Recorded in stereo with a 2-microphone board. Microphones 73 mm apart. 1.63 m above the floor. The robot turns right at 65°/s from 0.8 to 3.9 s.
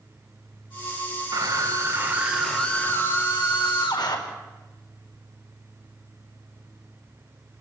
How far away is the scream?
About 4.5 m.